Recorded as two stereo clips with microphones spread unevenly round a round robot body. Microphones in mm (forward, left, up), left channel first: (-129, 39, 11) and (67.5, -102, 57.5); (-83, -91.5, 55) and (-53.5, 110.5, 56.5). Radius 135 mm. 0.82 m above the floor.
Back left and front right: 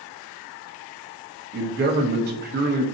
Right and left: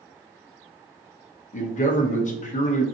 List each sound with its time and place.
1.5 s a man speaking: 75° right, 0.7 m